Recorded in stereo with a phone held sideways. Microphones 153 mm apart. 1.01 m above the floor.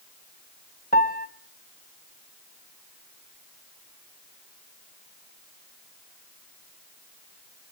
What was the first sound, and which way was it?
A piano, 70° left (ahead or behind).